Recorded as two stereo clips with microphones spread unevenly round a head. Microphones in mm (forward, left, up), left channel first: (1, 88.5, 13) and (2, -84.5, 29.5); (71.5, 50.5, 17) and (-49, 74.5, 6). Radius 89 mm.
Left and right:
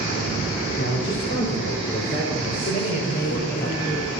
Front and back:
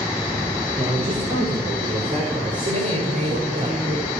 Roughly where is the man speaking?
Left.